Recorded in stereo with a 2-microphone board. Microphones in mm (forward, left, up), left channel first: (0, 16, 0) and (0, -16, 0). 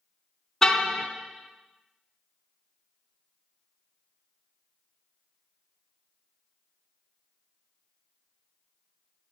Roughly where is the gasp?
No gasp in this recording.